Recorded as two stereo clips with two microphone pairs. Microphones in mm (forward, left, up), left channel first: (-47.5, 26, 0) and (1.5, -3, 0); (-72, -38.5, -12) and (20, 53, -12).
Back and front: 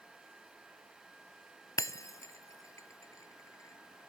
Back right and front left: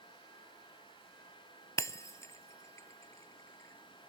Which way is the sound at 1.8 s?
160° left.